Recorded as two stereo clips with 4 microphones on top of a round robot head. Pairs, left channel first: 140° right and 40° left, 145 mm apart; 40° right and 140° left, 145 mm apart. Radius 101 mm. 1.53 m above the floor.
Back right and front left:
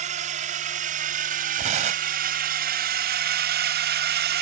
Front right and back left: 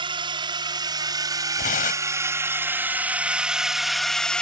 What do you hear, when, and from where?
0.0 s a drone: 80° left; by 4.4 s 45° left
1.6 s tearing paper: 5° right